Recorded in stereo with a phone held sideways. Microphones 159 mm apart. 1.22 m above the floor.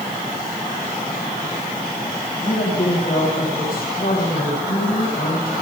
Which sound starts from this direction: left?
A woman speaking, at 2.4 s.